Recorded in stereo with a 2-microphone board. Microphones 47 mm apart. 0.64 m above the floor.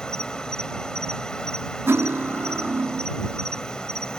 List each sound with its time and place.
0.0 s an insect: 20° left (ahead or behind)
1.9 s cutlery clinking: 55° right (ahead or behind)